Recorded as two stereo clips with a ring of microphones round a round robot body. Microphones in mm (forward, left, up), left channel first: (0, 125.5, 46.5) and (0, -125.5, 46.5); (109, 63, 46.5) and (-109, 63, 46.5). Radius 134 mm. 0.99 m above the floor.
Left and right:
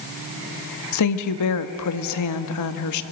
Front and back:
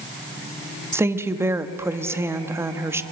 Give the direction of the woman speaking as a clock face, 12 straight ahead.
9 o'clock.